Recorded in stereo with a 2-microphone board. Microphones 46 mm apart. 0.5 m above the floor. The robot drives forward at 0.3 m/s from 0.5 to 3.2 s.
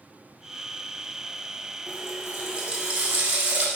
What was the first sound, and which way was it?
A running tap, 25° right (ahead or behind).